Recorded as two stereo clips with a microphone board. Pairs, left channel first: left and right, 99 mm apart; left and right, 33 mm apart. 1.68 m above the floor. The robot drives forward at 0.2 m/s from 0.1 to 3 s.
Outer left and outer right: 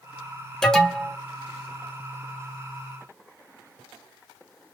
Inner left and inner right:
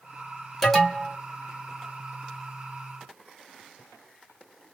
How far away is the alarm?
About 0.7 m.